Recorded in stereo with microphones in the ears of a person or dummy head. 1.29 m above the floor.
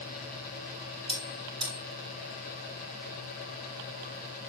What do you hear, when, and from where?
1.1 s a bell: 30° right (ahead or behind), 5.5 m